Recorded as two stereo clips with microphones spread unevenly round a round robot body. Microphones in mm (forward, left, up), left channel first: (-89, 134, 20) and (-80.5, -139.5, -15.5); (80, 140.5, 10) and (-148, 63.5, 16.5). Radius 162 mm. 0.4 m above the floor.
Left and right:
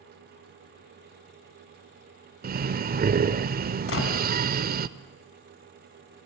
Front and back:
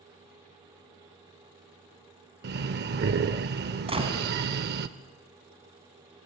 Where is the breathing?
125° right, 0.5 m.